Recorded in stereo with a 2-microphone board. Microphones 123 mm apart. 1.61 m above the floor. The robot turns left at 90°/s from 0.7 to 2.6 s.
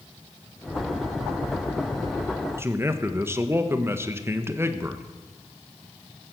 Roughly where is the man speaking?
Right.